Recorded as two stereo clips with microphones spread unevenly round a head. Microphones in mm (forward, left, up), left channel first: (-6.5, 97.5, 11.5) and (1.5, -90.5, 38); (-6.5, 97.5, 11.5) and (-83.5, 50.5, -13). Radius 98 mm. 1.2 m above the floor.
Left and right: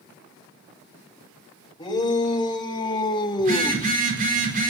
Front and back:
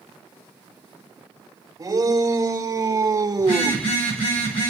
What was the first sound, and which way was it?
A shout, 160° left.